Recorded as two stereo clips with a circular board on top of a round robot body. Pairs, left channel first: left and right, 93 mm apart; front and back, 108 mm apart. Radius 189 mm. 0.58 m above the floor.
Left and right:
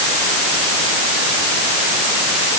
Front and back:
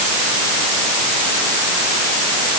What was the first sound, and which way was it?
Only background noise.